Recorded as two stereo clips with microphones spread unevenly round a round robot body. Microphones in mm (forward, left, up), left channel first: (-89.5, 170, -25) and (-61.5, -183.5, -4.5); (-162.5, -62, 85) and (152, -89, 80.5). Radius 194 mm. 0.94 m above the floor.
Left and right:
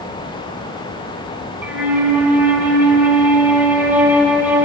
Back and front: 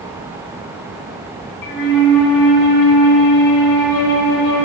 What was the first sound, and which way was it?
A flute, 170° right.